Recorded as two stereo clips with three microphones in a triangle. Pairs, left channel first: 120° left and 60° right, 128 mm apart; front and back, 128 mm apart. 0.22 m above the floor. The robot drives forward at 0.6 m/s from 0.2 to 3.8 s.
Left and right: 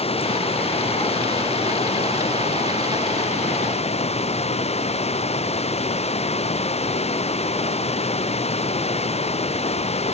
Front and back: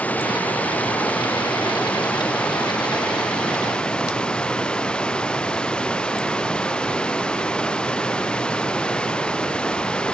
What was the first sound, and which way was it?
Running water, 80° left.